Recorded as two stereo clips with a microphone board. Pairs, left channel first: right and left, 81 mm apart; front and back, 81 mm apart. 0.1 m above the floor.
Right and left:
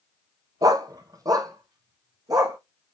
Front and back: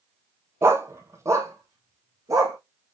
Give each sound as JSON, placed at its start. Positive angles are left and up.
{"t": 0.6, "sound": "a dog barking", "azimuth_deg": 125, "distance_m": 0.6}